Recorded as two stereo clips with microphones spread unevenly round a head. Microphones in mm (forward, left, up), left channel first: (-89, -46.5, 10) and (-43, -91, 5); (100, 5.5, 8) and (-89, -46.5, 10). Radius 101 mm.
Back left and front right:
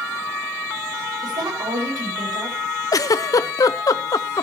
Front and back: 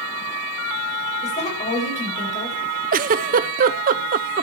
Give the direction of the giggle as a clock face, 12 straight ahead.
7 o'clock.